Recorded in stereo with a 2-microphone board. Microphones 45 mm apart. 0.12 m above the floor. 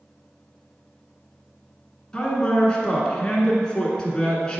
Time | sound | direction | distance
2.1 | a man speaking | 20° left (ahead or behind) | 1.2 m